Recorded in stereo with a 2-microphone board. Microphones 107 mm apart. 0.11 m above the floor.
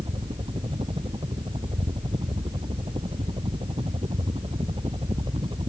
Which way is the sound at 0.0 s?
60° right (ahead or behind).